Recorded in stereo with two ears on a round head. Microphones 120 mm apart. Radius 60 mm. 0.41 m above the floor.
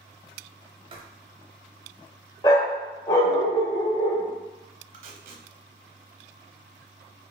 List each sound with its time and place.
0.9 s writing: 40° right (ahead or behind), 0.9 m
2.4 s a dog barking: 25° left (ahead or behind), 0.6 m
4.9 s tape being pulled: 75° right (ahead or behind), 0.9 m